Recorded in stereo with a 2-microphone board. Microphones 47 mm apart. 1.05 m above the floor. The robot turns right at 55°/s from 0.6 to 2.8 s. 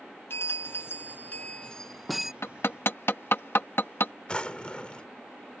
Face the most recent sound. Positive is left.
turn(degrees=30)  # may be behind; listen again after turning